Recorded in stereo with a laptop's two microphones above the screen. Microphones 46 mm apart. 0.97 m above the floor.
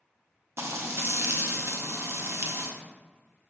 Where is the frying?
70° right (ahead or behind), 0.5 m.